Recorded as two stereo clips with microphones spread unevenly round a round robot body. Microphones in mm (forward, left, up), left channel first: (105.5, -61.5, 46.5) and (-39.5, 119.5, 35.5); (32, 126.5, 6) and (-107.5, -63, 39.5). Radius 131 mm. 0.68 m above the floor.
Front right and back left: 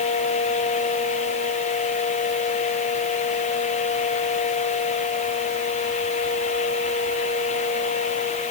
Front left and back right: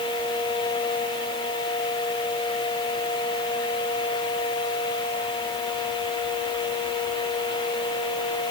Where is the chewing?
No chewing in this recording.